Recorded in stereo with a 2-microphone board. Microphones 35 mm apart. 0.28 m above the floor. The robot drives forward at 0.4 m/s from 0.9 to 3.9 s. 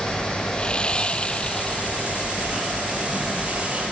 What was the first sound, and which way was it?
Sawing, 30° left (ahead or behind).